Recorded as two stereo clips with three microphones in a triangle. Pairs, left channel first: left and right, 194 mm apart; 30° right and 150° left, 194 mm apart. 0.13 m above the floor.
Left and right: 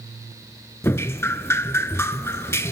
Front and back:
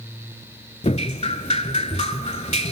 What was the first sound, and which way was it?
Dripping, 15° left.